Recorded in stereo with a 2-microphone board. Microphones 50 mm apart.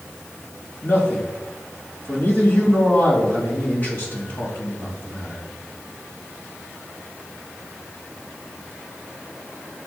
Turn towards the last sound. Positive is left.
turn(degrees=40)  # may be behind; listen again after turning